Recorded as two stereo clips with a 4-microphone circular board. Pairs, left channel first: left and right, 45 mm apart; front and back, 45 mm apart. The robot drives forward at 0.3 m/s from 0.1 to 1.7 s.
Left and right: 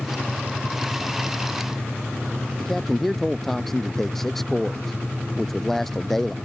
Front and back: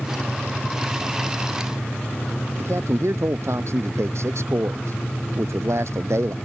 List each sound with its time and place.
2.6 s a man speaking: 175° left